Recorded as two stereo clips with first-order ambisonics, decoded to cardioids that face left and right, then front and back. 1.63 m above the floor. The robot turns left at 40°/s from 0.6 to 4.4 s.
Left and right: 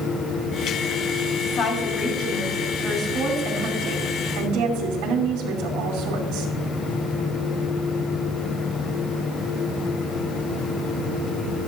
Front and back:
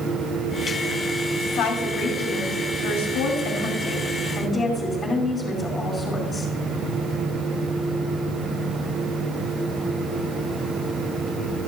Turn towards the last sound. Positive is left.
turn(degrees=-70)